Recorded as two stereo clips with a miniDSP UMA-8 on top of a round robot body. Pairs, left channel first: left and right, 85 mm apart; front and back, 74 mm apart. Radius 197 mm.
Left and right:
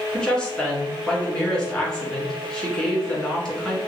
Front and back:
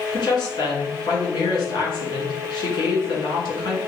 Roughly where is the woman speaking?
Ahead.